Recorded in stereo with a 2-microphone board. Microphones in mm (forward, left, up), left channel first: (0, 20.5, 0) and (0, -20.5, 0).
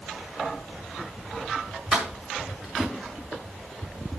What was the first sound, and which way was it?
Keys jangling, 20° right (ahead or behind).